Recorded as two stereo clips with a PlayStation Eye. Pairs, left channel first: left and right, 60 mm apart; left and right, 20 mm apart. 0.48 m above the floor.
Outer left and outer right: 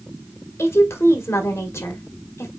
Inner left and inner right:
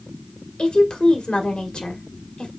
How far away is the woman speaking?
About 1.7 m.